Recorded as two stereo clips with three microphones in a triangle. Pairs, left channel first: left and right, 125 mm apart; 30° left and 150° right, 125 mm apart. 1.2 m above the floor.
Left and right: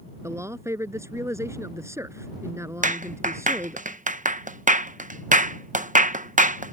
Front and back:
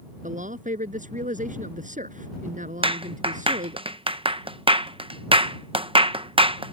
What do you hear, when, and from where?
0.2 s a man speaking: 160° right
2.8 s a clap: 100° right